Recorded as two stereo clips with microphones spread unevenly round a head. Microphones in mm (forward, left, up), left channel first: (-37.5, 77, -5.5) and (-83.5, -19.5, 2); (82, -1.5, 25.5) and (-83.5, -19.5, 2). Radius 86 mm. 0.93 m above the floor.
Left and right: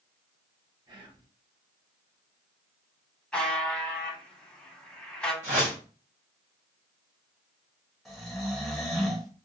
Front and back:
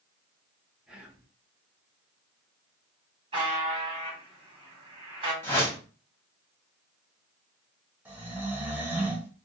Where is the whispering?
105° right, 0.9 m.